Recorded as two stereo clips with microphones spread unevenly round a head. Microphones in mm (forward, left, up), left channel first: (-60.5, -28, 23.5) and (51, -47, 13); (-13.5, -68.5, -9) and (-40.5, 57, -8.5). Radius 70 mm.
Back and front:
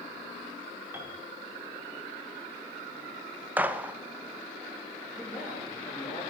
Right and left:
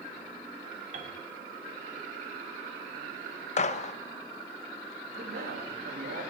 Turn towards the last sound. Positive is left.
turn(degrees=105)